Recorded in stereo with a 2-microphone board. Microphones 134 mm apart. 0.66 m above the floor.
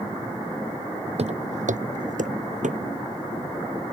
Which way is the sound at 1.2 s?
50° right (ahead or behind).